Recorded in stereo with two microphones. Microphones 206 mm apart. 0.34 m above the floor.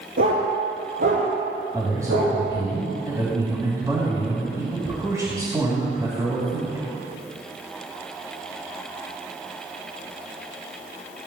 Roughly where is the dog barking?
Right.